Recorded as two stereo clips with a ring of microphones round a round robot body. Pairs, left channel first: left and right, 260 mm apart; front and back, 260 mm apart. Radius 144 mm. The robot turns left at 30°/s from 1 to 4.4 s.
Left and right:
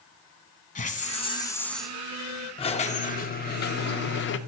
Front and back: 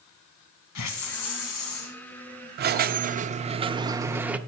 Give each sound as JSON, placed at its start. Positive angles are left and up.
{"t": 0.8, "sound": "a hiss", "azimuth_deg": 25, "distance_m": 1.1}
{"t": 2.6, "sound": "a squeak", "azimuth_deg": 150, "distance_m": 0.5}